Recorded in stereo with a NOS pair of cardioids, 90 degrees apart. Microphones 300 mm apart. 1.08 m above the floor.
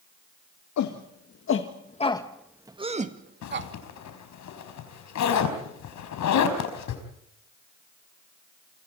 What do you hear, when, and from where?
0.8 s a shout: 70° left, 2.5 m; by 3.7 s 40° right, 3 m
3.4 s a zipper: 70° left, 4.5 m